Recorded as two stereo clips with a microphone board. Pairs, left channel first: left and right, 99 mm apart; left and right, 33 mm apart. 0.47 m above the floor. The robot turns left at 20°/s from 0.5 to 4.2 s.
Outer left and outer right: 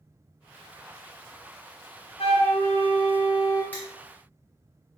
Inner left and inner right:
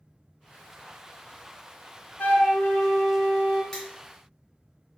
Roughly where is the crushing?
Centre.